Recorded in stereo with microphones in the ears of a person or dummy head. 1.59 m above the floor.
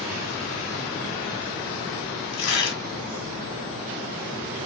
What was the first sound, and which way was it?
Tearing paper, 80° left.